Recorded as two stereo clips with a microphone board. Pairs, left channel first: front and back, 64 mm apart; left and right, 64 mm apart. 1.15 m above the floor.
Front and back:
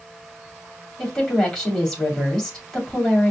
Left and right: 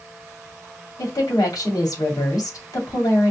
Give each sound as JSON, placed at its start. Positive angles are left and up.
{"t": 1.0, "sound": "a woman speaking", "azimuth_deg": 75, "distance_m": 2.5}